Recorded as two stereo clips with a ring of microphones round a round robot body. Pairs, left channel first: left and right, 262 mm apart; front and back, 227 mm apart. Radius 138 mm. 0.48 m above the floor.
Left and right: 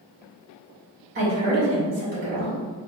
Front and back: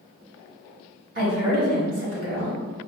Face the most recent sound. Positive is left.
turn(degrees=-140)